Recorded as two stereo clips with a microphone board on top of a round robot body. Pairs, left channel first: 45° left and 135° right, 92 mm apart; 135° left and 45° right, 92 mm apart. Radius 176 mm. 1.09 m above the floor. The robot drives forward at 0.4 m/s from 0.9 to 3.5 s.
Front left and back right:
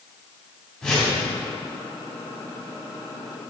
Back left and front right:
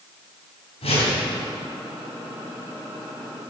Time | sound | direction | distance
0.8 | a whoosh | 130° left | 3.5 m